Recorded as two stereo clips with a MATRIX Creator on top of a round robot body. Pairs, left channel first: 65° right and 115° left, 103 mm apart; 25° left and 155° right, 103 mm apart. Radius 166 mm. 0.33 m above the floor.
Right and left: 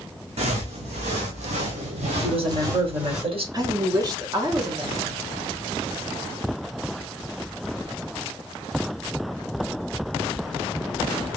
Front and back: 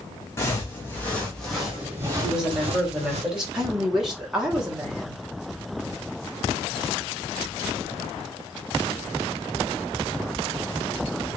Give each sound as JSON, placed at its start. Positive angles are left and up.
{"t": 0.4, "sound": "footsteps", "azimuth_deg": 90, "distance_m": 1.3}
{"t": 2.2, "sound": "a woman speaking", "azimuth_deg": 125, "distance_m": 2.0}
{"t": 3.5, "sound": "a woman speaking", "azimuth_deg": 120, "distance_m": 1.6}